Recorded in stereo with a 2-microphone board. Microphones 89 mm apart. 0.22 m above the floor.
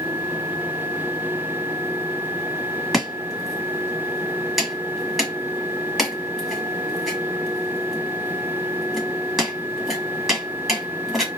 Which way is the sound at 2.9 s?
5° right (ahead or behind).